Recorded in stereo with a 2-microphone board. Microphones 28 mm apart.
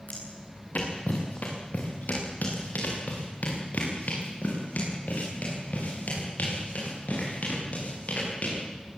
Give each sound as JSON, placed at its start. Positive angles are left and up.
{"t": 0.1, "sound": "footsteps", "side_deg": 60, "distance_m": 6.0}